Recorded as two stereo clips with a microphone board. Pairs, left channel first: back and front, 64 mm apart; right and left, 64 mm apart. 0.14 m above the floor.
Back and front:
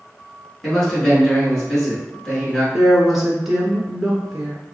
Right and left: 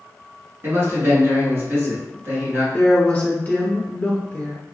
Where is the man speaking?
105° left, 1.4 m.